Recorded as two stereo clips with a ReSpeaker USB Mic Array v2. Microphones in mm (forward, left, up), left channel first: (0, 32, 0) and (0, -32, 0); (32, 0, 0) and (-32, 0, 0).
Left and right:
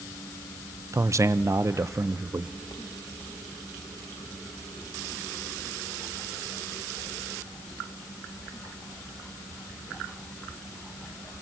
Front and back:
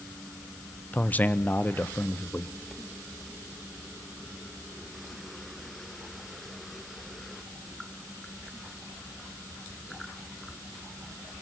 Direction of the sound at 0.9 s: 60° right.